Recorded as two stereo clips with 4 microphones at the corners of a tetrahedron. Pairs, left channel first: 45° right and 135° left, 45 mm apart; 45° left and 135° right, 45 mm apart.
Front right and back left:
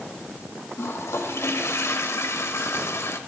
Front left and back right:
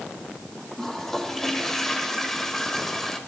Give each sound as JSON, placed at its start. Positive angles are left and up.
{"t": 0.8, "sound": "a toilet flushing", "azimuth_deg": -40, "distance_m": 1.2}